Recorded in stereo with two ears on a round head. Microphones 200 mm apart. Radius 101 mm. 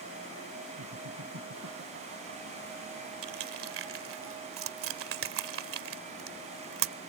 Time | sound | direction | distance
0.8 | laughter | 65° right (ahead or behind) | ?
3.2 | crushing | 60° right (ahead or behind) | ?